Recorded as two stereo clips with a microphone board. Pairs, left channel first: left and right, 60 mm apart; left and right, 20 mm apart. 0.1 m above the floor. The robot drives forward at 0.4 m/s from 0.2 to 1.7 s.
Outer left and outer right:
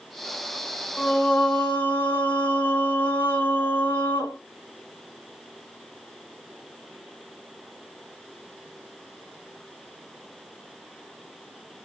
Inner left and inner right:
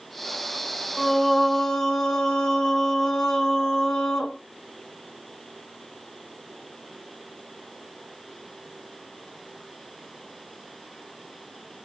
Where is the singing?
30° left (ahead or behind), 1.6 m; by 4.4 s 25° left (ahead or behind), 1.9 m.